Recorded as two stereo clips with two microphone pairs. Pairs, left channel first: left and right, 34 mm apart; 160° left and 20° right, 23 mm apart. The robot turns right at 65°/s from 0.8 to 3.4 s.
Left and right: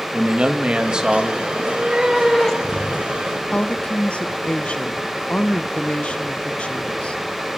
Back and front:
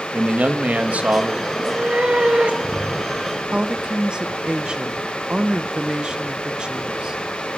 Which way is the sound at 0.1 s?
35° right.